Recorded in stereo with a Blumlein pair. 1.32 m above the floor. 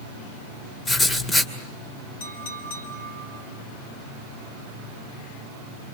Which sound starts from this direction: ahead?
Writing, at 0.8 s.